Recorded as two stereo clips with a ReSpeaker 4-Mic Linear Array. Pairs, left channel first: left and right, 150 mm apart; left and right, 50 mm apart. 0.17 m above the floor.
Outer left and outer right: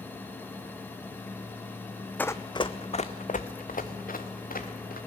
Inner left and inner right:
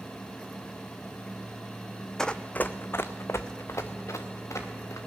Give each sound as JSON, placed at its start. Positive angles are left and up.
{"t": 2.2, "sound": "running footsteps", "side_deg": 10, "distance_m": 0.5}